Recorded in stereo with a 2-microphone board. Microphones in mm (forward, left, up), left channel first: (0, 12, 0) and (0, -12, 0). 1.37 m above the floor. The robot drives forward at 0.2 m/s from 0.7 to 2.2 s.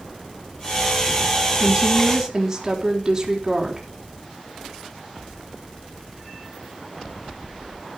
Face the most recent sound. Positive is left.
turn(degrees=-20)  # may be behind; listen again after turning